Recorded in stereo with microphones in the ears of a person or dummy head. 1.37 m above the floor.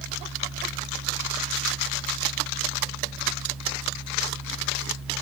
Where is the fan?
Centre (ahead or behind), 0.9 m.